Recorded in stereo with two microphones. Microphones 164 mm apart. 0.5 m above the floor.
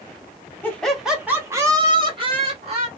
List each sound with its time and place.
0.6 s laughter: 10° left (ahead or behind), 1.0 m; by 2.9 s 40° right (ahead or behind), 1.7 m